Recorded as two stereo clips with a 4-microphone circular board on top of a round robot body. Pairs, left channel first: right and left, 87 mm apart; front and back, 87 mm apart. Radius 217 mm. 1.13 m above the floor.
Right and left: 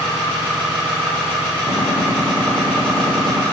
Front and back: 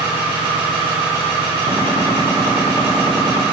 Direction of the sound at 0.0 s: 170° right.